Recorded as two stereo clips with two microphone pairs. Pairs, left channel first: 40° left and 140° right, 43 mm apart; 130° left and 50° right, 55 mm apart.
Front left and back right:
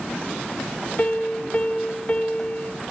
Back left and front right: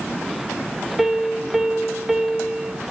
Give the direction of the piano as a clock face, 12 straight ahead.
11 o'clock.